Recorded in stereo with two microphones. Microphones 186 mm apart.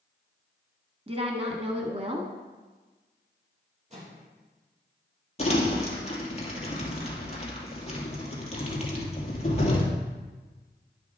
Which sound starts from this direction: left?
Crumpling, at 5.4 s.